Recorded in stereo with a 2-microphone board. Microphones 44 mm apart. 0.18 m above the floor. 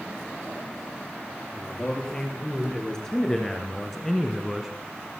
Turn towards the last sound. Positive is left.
turn(degrees=-5)  # may be behind; listen again after turning